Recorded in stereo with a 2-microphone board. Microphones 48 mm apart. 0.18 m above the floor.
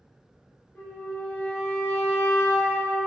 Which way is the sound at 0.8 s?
30° left (ahead or behind).